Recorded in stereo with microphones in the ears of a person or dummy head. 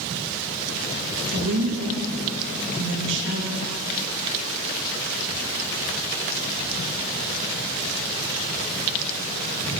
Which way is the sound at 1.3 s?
65° right (ahead or behind).